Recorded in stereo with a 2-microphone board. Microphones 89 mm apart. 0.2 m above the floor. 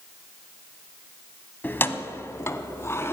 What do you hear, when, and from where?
1.6 s keys jangling: 20° left (ahead or behind), 0.7 m; by 3.1 s 30° left (ahead or behind), 1.2 m